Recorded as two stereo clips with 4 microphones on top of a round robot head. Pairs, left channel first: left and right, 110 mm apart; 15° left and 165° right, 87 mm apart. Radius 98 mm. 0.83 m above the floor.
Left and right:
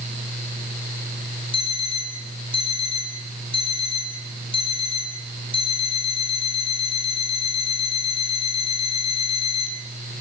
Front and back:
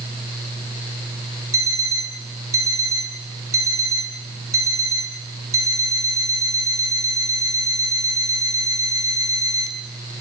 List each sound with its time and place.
1.5 s an alarm clock: 140° left, 3.5 m